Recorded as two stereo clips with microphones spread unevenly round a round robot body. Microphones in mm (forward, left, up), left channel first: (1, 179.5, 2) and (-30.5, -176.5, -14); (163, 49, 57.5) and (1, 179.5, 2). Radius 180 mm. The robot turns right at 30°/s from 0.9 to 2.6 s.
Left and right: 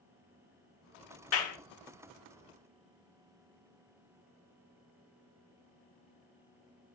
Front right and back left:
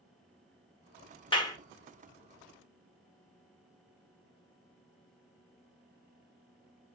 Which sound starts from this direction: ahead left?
A clap, at 1.3 s.